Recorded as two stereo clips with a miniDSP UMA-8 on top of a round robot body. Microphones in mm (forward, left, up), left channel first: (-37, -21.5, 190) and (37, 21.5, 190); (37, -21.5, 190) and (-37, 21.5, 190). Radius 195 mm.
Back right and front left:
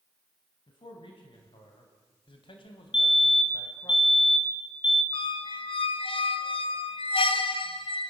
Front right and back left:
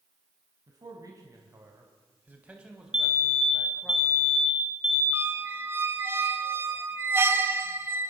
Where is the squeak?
145° right, 1.3 m.